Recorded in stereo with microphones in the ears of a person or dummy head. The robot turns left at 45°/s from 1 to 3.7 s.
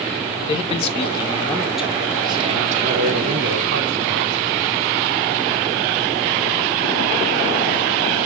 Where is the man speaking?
35° left, 0.6 m; by 4.4 s 90° right, 0.6 m.